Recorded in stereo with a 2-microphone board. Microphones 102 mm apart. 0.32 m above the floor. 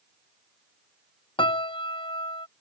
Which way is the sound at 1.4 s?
60° left (ahead or behind).